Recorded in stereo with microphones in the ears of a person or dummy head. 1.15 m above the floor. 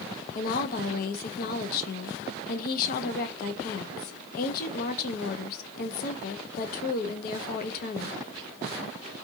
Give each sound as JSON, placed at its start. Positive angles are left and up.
{"t": 0.3, "sound": "a woman speaking", "side_deg": 50, "distance_m": 0.7}